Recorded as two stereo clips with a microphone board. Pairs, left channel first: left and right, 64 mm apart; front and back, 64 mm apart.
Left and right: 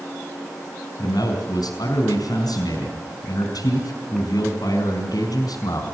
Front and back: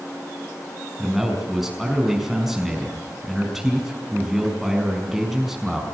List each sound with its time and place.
1.0 s a man speaking: 90° left, 5 m